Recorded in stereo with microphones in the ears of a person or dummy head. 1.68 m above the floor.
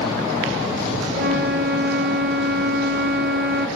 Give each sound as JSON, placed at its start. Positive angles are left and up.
{"t": 1.1, "sound": "a flute", "side_deg": -50, "distance_m": 1.2}